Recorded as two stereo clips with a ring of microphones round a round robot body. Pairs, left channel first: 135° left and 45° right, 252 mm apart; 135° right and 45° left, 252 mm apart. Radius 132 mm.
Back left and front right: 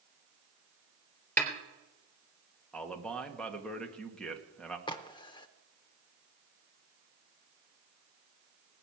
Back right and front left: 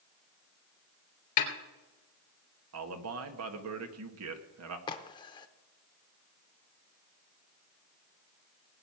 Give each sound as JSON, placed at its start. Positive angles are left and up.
{"t": 1.4, "sound": "a snare drum", "azimuth_deg": -145, "distance_m": 3.5}
{"t": 2.7, "sound": "a man speaking", "azimuth_deg": 50, "distance_m": 1.7}
{"t": 4.9, "sound": "a crack", "azimuth_deg": 180, "distance_m": 0.6}